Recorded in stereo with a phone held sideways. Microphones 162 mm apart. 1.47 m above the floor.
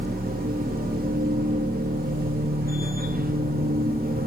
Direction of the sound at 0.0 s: 65° right (ahead or behind).